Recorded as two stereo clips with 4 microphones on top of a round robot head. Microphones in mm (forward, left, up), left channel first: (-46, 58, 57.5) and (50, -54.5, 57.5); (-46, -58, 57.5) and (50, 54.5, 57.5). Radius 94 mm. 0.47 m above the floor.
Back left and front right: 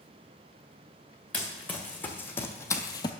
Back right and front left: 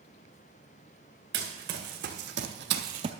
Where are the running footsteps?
50° left, 2 m; by 3.1 s 90° left, 0.5 m.